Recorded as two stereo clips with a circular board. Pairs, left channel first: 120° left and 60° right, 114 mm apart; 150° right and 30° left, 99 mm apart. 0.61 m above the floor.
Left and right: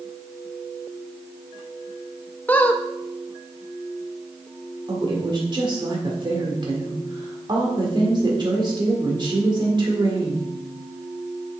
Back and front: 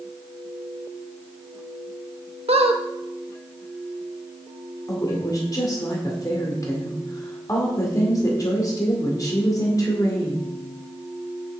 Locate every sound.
2.5 s a squeak: 45° left, 0.6 m
4.9 s a woman speaking: 100° right, 1.8 m